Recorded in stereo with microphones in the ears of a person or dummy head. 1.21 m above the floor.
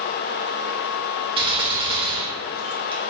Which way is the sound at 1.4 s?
30° right (ahead or behind).